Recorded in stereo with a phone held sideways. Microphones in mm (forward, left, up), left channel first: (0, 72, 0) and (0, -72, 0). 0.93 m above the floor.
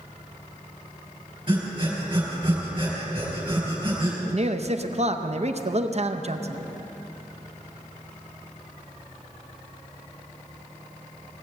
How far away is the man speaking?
About 0.7 m.